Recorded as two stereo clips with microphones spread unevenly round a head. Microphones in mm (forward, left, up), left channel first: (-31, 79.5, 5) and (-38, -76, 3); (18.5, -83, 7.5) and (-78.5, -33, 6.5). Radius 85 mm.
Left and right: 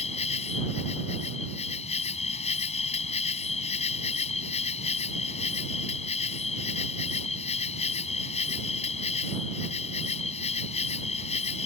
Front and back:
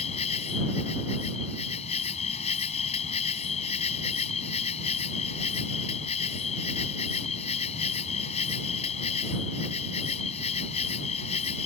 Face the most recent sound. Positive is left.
turn(degrees=30)